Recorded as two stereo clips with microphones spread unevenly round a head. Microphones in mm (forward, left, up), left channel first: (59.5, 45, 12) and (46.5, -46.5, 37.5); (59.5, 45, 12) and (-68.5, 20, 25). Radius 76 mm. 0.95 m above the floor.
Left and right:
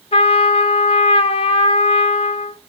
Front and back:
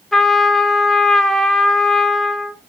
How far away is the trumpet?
About 0.8 m.